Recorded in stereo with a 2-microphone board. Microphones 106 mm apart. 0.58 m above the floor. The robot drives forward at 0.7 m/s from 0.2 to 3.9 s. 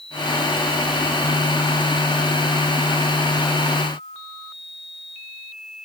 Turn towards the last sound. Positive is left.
No sound to turn to.